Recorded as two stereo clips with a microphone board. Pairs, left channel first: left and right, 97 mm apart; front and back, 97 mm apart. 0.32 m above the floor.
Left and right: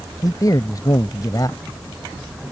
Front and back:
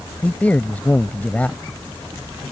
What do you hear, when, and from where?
0.2 s a man speaking: 70° left